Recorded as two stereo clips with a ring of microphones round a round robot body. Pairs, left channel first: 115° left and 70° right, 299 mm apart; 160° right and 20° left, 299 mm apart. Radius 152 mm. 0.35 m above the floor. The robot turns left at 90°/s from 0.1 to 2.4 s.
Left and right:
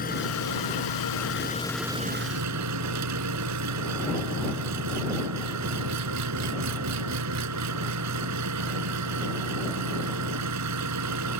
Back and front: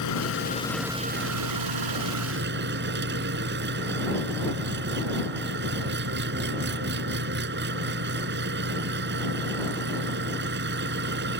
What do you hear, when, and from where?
0.0 s an engine running: 175° left; by 11.4 s 35° right